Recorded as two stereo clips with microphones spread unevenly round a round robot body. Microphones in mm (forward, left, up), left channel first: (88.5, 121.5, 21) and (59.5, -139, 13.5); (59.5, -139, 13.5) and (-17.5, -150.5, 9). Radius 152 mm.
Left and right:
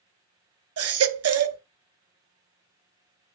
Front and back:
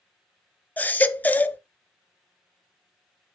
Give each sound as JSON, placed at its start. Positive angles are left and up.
{"t": 0.8, "sound": "a baby crying", "azimuth_deg": -65, "distance_m": 0.8}